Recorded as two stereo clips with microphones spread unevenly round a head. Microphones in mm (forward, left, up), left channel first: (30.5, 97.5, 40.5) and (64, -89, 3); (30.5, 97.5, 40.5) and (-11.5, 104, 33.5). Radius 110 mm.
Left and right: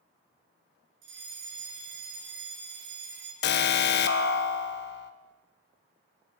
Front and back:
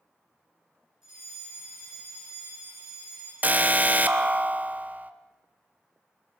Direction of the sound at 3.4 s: 140° left.